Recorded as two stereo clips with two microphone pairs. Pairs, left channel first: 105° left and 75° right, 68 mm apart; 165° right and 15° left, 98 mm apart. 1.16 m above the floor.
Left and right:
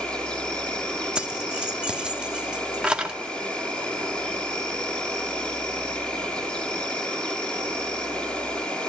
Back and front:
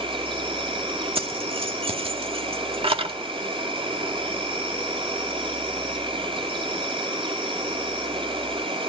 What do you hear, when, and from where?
0.0 s an insect: 30° left, 5.5 m
1.1 s keys jangling: straight ahead, 1.9 m